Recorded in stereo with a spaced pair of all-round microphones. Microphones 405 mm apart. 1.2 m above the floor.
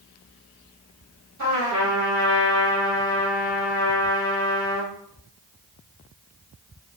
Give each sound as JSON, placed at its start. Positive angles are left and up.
{"t": 1.4, "sound": "a trumpet", "side_deg": -40, "distance_m": 1.5}